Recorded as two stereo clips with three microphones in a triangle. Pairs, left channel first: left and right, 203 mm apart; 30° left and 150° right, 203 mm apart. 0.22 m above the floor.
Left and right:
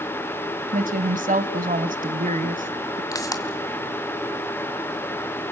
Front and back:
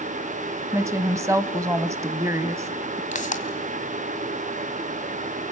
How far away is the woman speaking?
About 1.2 m.